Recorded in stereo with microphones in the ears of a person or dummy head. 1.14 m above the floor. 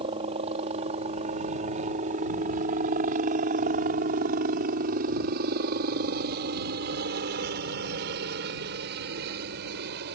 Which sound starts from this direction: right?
A helicopter, at 0.0 s.